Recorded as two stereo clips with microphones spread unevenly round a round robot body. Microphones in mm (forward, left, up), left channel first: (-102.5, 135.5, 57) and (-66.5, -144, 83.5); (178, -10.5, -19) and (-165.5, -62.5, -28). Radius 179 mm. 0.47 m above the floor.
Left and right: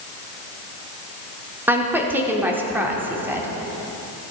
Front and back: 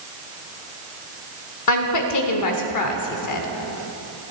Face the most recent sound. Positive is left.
turn(degrees=5)